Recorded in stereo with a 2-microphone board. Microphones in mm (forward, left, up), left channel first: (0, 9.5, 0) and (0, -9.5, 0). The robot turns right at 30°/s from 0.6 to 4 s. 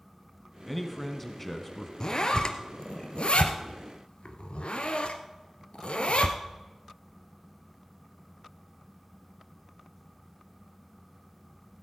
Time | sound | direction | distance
0.7 | a man speaking | centre (ahead or behind) | 1.3 m
2.0 | a zipper | 30° left (ahead or behind) | 1.2 m